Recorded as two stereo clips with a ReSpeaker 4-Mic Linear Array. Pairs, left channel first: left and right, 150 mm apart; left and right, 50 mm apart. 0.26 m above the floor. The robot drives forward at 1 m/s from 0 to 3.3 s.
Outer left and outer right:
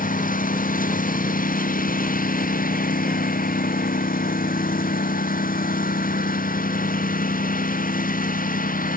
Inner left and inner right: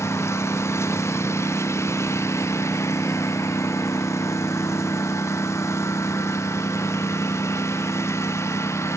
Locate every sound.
0.0 s a lawn mower: 65° left (ahead or behind)